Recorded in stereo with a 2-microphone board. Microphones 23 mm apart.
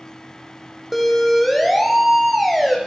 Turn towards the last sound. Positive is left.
turn(degrees=0)  # may be behind; listen again after turning